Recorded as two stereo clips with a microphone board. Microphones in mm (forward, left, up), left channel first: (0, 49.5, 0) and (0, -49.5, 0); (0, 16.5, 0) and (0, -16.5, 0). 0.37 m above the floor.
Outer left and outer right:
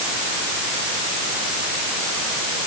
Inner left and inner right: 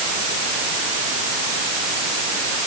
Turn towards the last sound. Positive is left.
No sound to turn to.